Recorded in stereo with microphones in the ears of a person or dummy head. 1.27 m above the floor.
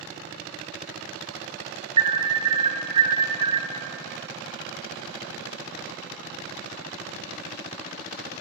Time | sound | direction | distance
2.0 | an alarm | 30° right (ahead or behind) | 0.6 m